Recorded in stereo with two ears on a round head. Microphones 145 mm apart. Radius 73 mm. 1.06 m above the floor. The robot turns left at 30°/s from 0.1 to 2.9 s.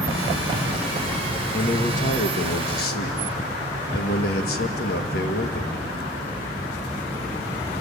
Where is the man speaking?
135° left, 1.6 m; by 5.8 s 90° left, 1.6 m.